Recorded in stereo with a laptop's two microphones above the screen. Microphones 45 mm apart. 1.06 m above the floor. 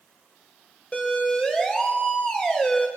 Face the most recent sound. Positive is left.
turn(degrees=25)  # may be behind; listen again after turning